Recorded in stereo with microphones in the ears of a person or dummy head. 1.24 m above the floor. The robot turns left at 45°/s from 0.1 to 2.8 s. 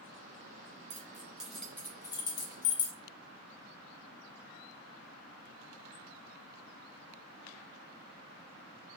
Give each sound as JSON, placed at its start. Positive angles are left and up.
{"t": 0.9, "sound": "keys jangling", "side_deg": -25, "distance_m": 0.6}